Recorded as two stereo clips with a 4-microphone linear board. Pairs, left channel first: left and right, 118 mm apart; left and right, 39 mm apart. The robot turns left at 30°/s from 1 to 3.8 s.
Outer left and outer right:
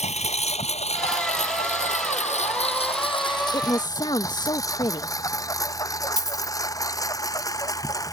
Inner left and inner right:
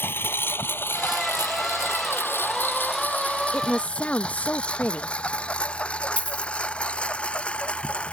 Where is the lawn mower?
70° left (ahead or behind); by 8.2 s 30° left (ahead or behind).